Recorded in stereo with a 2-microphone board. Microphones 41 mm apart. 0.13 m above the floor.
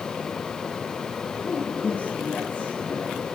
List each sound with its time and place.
1.4 s a man speaking: 50° left (ahead or behind), 5.5 m; by 3.2 s 20° left (ahead or behind), 4.5 m